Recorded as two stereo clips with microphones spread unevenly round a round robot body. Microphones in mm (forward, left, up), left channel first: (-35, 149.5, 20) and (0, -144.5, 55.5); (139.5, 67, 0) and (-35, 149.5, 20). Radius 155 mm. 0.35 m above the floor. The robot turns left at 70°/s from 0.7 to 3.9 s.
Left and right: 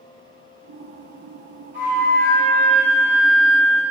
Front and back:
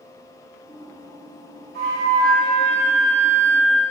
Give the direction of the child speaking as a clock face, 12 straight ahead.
No child speaking in this recording.